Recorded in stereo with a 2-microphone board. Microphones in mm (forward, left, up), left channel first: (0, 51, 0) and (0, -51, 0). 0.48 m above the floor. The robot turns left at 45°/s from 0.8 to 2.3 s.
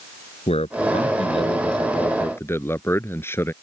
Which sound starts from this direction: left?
A man speaking, at 0.5 s.